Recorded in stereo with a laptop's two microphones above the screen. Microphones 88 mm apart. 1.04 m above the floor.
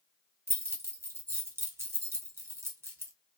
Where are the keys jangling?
30° right (ahead or behind), 0.6 m.